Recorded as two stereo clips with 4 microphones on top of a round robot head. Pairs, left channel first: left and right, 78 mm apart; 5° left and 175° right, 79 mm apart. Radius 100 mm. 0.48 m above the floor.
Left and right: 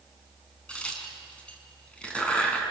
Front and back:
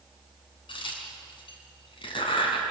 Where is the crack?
15° left, 4.5 m.